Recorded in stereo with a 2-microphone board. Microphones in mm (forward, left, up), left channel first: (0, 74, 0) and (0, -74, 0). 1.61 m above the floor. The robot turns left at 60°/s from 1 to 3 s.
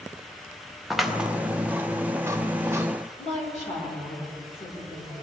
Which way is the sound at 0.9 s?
Centre (ahead or behind).